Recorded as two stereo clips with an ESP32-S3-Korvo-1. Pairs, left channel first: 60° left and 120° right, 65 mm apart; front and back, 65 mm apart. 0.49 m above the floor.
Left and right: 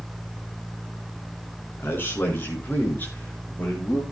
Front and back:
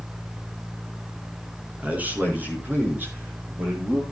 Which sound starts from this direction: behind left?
A man speaking, at 1.8 s.